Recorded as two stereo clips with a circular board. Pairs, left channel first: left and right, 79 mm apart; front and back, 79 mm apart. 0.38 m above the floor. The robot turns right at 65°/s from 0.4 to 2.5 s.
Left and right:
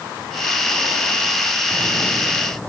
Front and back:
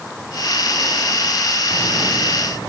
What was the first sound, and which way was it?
Only background noise.